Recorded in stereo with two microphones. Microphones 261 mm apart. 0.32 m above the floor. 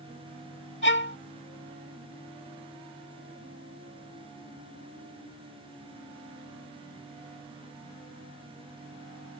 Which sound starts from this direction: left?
A violin, at 0.8 s.